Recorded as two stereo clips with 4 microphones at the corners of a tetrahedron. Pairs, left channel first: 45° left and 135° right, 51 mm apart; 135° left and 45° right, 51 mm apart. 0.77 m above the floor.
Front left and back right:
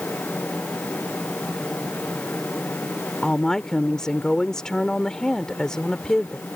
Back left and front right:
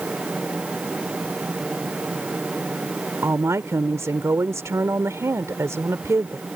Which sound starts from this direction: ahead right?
A woman speaking, at 3.2 s.